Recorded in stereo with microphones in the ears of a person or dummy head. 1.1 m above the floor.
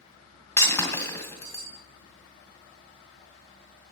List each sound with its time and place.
0.6 s breaking glass: 20° left (ahead or behind), 2 m